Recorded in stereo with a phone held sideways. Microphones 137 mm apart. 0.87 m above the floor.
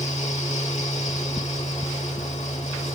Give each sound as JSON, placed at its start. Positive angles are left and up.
{"t": 0.0, "sound": "a fan", "side_deg": 50, "distance_m": 1.2}